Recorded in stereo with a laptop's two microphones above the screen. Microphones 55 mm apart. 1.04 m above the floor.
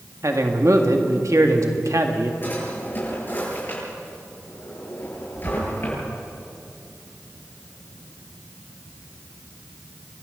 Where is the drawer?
40° left (ahead or behind), 9.5 m.